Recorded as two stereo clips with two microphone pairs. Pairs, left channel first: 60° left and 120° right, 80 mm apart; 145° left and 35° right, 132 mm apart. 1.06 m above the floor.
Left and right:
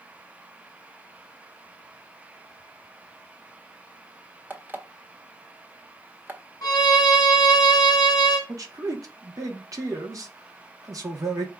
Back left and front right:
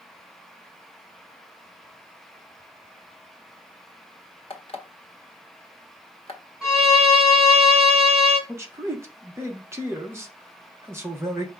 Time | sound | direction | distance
4.5 | an alarm clock | 175° left | 1.0 m
6.6 | a violin | 50° left | 1.1 m
8.5 | a man speaking | 100° right | 1.0 m